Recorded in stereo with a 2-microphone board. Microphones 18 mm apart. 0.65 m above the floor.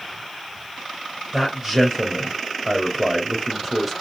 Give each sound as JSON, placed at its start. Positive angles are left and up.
{"t": 1.3, "sound": "a man speaking", "side_deg": -15, "distance_m": 3.5}